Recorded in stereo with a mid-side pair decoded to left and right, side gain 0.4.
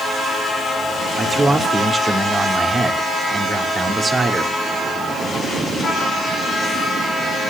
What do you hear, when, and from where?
1.2 s a man speaking: 30° right, 2.5 m